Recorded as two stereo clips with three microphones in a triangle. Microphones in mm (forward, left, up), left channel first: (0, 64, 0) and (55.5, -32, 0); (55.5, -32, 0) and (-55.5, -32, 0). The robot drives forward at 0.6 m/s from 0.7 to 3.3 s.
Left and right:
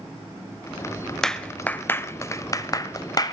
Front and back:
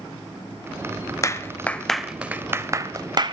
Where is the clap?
35° left, 0.9 m; by 3.3 s 155° left, 1.1 m.